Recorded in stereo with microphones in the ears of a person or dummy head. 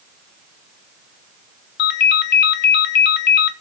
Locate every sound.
1.8 s a ringtone: 65° left (ahead or behind), 0.9 m